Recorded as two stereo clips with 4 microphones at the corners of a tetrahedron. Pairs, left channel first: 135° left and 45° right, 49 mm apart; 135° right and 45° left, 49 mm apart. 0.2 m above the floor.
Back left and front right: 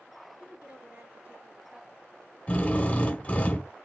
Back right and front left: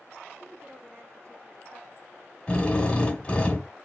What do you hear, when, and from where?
0.4 s a woman speaking: 10° left, 3.5 m
2.5 s a drill: 170° left, 1.4 m